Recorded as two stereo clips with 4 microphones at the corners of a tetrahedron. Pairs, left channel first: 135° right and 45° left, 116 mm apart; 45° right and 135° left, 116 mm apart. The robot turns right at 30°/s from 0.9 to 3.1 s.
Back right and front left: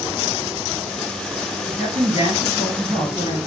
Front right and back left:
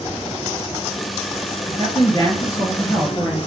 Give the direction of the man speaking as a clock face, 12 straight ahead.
12 o'clock.